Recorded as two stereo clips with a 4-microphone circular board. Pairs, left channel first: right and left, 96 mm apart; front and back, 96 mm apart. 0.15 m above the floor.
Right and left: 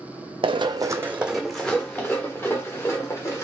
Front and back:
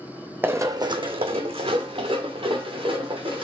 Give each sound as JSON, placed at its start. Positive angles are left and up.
{"t": 0.4, "sound": "running footsteps", "azimuth_deg": 110, "distance_m": 0.5}